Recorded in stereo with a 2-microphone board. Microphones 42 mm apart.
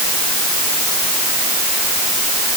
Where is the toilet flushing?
No toilet flushing in this recording.